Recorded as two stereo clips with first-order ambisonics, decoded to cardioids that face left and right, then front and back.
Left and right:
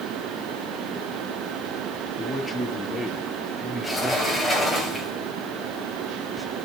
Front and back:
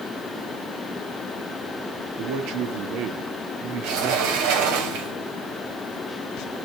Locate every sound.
2.2 s a man speaking: 175° left, 1.4 m
3.8 s a sliding door: straight behind, 3 m